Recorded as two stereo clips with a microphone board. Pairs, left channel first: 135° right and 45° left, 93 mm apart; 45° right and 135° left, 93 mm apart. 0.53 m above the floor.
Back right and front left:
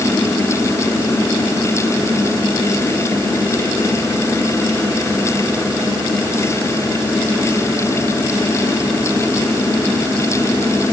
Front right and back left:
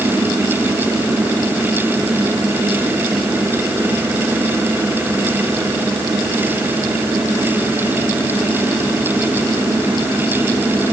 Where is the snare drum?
I don't hear a snare drum.